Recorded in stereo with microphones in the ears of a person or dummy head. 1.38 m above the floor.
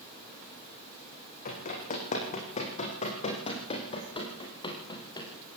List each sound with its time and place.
1.4 s running footsteps: 50° left (ahead or behind), 4.5 m; by 5.3 s 25° left (ahead or behind), 3.5 m